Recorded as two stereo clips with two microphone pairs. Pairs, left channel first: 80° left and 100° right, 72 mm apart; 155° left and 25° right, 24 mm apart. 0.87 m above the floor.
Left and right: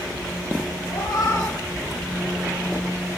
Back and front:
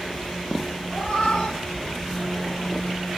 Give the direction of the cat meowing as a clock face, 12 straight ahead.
8 o'clock.